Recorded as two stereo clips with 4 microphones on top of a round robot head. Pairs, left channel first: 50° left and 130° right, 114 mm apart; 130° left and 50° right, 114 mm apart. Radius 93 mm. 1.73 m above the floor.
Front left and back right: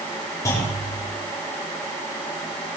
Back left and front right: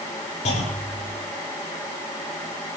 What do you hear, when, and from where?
0.5 s a clunk: 110° left, 7.5 m